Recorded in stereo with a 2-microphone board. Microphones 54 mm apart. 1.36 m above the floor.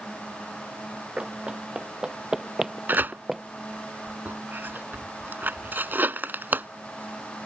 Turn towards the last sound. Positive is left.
turn(degrees=-40)  # may be behind; listen again after turning